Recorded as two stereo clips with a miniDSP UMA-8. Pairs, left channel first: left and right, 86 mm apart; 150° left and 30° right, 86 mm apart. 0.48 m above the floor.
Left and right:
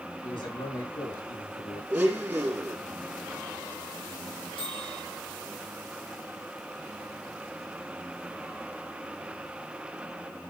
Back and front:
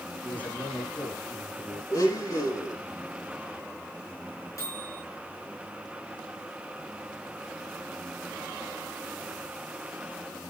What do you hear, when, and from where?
0.2 s a man speaking: 80° left, 6.5 m
1.9 s a blender: 160° right, 4.5 m
4.6 s a microwave: 100° left, 5 m